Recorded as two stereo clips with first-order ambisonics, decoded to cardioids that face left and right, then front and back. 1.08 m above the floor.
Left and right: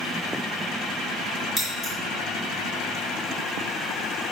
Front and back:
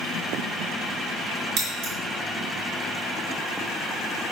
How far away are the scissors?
About 2.0 m.